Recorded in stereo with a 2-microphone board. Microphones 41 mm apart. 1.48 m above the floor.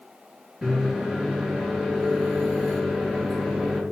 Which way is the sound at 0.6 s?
Centre (ahead or behind).